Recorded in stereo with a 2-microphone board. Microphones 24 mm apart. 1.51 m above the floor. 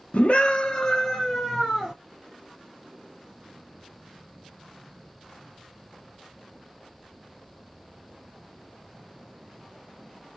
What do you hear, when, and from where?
0.1 s a scream: 70° left (ahead or behind), 0.8 m; by 1.9 s 5° right (ahead or behind), 1.7 m